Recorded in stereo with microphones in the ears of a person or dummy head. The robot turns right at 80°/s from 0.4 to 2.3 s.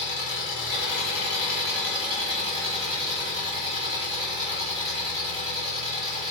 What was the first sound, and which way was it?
An engine running, 60° left.